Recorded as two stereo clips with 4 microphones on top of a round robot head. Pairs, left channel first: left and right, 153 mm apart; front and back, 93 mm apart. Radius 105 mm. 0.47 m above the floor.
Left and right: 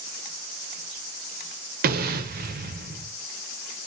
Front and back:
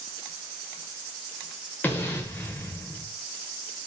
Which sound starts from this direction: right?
An explosion, at 1.8 s.